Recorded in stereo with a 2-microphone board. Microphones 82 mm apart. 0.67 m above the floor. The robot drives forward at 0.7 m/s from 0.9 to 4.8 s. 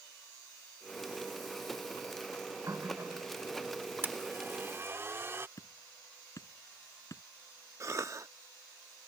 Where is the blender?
25° right (ahead or behind); by 5.5 s 30° right (ahead or behind).